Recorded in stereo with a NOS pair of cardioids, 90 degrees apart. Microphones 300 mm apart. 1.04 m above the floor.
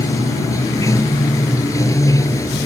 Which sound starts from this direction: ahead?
Running water, at 0.0 s.